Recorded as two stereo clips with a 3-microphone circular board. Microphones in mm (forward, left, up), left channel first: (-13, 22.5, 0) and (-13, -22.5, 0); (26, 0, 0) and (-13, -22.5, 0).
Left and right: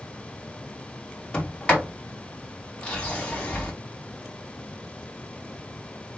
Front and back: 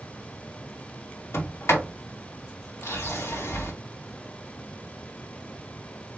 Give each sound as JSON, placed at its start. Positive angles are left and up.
{"t": 1.3, "sound": "a sliding door", "azimuth_deg": 25, "distance_m": 2.0}